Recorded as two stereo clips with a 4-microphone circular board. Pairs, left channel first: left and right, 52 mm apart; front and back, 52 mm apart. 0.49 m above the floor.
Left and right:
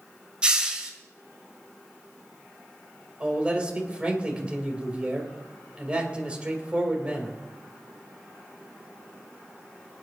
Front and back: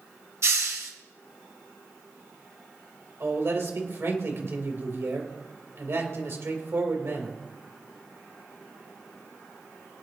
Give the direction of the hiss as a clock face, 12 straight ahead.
5 o'clock.